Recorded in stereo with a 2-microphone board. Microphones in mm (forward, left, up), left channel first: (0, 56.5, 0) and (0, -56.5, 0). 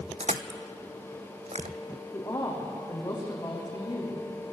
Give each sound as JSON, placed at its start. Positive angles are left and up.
{"t": 0.2, "sound": "crushing", "side_deg": -75, "distance_m": 0.8}
{"t": 2.1, "sound": "a woman speaking", "side_deg": 30, "distance_m": 5.5}